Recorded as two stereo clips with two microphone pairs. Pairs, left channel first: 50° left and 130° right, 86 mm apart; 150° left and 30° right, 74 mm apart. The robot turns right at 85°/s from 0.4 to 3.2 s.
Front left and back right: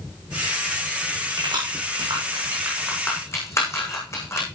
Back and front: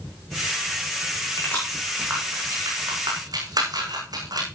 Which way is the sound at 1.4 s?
160° right.